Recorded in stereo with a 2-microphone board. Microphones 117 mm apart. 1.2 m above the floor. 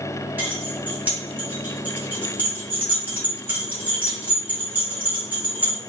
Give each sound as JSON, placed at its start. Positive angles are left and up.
{"t": 0.4, "sound": "keys jangling", "side_deg": -15, "distance_m": 1.6}